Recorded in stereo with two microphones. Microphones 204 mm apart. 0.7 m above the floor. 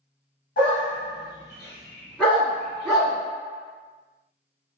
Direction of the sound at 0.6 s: 45° left (ahead or behind).